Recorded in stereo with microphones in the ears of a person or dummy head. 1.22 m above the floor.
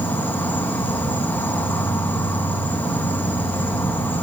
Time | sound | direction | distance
0.0 | an insect | 10° left (ahead or behind) | 1.7 m